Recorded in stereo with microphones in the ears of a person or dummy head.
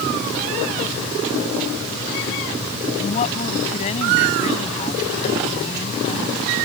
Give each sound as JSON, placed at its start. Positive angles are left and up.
{"t": 3.0, "sound": "a woman speaking", "side_deg": 40}